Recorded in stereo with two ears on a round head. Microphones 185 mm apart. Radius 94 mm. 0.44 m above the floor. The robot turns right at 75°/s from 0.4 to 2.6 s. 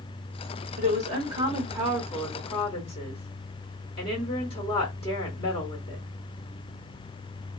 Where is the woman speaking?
90° right, 1.6 m; by 6.0 s 45° left, 1.6 m.